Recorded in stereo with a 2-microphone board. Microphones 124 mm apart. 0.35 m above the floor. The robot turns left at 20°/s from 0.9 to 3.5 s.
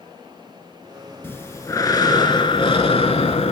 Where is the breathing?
160° left, 0.7 m; by 3.5 s 115° left, 0.7 m.